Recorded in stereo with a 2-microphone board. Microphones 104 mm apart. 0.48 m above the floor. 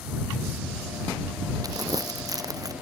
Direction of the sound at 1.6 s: 35° right (ahead or behind).